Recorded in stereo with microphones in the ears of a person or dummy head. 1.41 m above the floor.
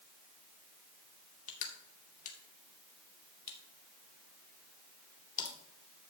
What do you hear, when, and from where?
1.5 s crushing: 40° left (ahead or behind), 2.5 m